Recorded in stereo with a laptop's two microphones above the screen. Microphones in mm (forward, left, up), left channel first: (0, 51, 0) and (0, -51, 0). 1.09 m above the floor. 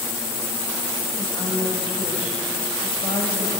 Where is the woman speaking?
55° left (ahead or behind), 6 m.